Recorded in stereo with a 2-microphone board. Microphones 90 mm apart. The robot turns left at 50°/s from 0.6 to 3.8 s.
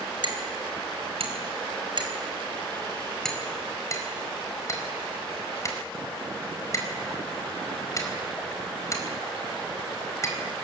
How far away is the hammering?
About 4.5 m.